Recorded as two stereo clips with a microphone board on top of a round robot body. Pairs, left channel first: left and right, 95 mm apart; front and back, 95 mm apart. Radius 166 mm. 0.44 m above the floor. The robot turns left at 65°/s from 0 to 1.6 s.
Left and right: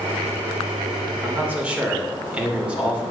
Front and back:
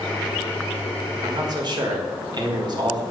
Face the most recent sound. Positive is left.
turn(degrees=-165)